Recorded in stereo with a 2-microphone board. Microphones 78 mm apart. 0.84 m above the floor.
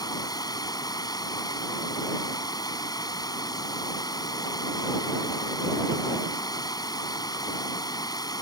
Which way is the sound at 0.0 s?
60° left (ahead or behind).